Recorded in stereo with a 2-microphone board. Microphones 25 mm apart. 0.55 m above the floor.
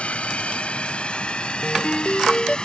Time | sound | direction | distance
0.0 | a drone | 50° left (ahead or behind) | ?
1.6 | a ringtone | 45° left (ahead or behind) | ?